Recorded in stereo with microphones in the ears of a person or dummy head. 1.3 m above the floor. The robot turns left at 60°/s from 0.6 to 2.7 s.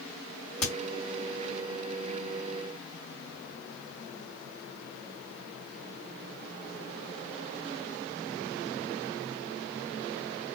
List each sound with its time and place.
0.6 s a crack: 60° left (ahead or behind), 1.9 m; by 0.7 s 65° left (ahead or behind), 1.9 m